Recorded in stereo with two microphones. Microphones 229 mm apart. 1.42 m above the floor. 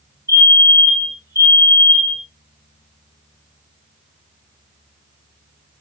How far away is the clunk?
No clunk in this recording.